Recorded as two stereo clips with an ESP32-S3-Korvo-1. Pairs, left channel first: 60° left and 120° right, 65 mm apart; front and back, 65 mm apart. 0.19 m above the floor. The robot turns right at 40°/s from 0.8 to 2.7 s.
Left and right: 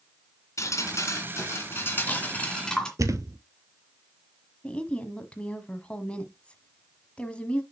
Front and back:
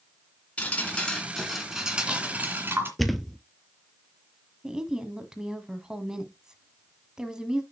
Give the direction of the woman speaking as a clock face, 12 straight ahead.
8 o'clock.